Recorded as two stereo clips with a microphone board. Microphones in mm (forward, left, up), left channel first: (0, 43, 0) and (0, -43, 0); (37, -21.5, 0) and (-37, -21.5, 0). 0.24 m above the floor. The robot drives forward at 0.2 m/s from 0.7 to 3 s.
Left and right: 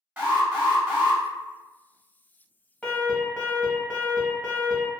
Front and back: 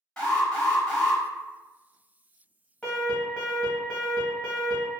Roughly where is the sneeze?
I don't hear a sneeze.